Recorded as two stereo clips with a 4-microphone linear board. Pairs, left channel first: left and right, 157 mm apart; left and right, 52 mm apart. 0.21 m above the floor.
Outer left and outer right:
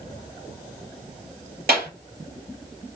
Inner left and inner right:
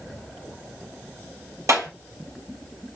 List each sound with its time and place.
1.7 s a clap: 75° right (ahead or behind), 3.5 m